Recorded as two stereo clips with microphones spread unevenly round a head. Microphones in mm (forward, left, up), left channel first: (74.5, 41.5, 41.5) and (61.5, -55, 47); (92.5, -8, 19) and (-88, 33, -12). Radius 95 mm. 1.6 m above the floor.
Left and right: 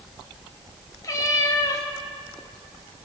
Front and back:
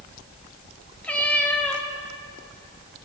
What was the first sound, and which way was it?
A cat meowing, 50° left.